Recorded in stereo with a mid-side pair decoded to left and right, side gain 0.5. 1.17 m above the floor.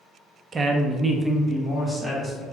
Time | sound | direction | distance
0.5 | a woman speaking | 35° right | 0.7 m